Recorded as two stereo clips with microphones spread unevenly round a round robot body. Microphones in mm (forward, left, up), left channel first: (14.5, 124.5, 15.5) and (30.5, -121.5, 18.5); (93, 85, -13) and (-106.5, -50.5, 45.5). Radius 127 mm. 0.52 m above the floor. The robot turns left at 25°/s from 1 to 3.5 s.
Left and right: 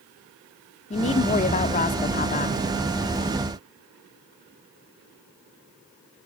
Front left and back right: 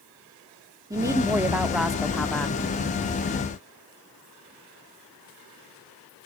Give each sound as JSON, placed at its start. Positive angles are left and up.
{"t": 0.9, "sound": "a woman speaking", "azimuth_deg": 125, "distance_m": 0.9}